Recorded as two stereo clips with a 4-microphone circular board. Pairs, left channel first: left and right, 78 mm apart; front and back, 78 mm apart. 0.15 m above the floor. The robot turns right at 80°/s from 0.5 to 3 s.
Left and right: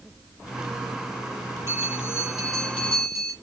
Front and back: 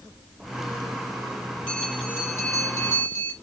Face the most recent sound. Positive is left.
turn(degrees=40)